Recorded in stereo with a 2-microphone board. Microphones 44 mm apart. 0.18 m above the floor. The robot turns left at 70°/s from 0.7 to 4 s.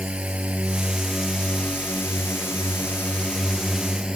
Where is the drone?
150° right; by 4.2 s 20° right.